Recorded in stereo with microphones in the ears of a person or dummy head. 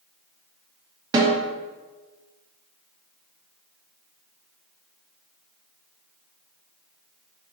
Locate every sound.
1.1 s a snare drum: 20° right (ahead or behind), 0.7 m